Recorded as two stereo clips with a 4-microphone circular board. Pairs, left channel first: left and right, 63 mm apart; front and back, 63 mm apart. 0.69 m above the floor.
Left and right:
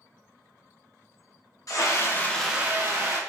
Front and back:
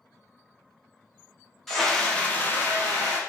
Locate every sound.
1.7 s a scream: 85° left, 1.0 m; by 3.2 s 65° right, 1.0 m